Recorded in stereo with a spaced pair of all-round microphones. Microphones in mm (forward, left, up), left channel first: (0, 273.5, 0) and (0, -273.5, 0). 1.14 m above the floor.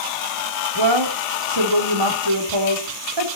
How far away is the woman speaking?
About 3.5 m.